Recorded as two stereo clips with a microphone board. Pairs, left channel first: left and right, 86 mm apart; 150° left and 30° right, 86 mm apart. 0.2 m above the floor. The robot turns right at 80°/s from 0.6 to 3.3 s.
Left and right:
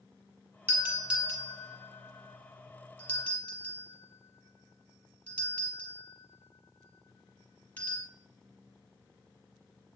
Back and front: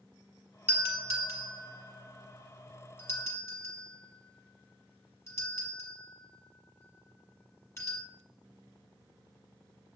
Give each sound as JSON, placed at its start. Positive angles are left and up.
{"t": 0.7, "sound": "a doorbell", "azimuth_deg": -65, "distance_m": 1.5}